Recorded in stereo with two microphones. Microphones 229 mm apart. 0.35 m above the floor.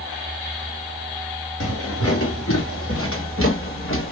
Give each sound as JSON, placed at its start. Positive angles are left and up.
{"t": 1.6, "sound": "footsteps", "side_deg": 85, "distance_m": 2.5}